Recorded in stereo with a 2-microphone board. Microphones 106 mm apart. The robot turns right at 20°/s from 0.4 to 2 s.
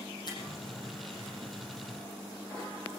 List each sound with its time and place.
0.3 s a finger snap: 40° left (ahead or behind), 7.5 m